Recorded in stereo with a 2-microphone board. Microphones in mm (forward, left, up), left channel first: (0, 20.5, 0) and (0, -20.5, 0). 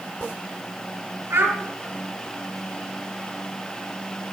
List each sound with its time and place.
1.3 s a child speaking: 75° right (ahead or behind), 5 m